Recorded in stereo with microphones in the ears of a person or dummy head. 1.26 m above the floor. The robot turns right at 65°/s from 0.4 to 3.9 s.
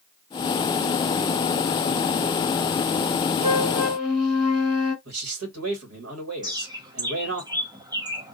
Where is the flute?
30° right, 1.6 m; by 5.0 s straight ahead, 1.6 m.